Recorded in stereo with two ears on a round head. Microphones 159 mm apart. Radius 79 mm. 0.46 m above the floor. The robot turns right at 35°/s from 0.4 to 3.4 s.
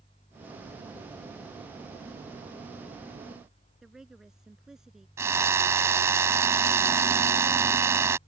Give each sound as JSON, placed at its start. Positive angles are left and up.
{"t": 3.8, "sound": "a woman speaking", "side_deg": -5}
{"t": 5.2, "sound": "a drill", "side_deg": -15}